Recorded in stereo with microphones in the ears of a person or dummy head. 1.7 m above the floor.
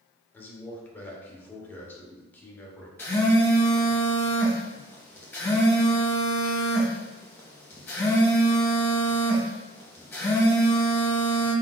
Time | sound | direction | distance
0.3 | a man speaking | 10° left (ahead or behind) | 1.3 m
3.0 | a phone buzzing | 10° left (ahead or behind) | 1.1 m